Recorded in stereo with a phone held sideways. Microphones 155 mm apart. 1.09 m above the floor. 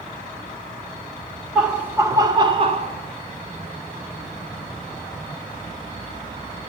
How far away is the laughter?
About 1.3 m.